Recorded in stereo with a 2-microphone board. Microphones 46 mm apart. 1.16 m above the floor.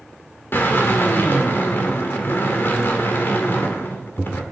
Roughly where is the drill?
Left.